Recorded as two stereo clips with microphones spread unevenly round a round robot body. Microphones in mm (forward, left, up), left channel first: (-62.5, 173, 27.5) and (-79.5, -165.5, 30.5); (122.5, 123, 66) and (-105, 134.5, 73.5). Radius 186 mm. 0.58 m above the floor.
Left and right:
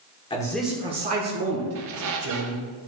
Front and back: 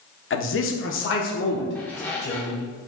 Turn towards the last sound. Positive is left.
turn(degrees=-80)